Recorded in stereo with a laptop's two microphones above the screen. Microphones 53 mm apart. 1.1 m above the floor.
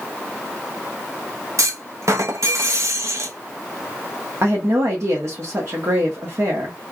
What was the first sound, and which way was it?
A clunk, 65° right (ahead or behind).